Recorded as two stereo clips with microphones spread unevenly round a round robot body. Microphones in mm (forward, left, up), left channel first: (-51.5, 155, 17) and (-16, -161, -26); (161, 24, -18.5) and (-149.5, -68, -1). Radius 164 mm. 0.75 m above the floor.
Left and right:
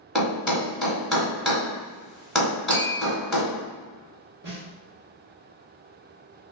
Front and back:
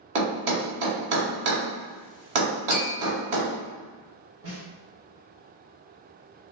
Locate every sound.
0.1 s a thud: 175° right, 1.4 m
2.7 s tapping: 90° right, 1.0 m
4.4 s a snare drum: 120° right, 1.4 m